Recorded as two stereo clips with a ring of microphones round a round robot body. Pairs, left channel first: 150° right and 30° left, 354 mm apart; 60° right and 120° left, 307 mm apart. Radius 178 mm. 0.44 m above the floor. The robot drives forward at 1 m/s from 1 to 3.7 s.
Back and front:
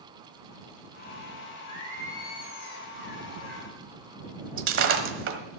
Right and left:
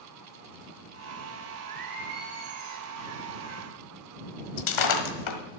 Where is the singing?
135° left, 3.5 m; by 3.7 s 150° left, 5.5 m.